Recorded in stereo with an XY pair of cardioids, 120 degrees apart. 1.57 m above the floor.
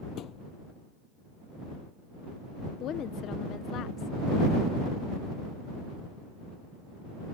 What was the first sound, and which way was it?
A thud, 65° left.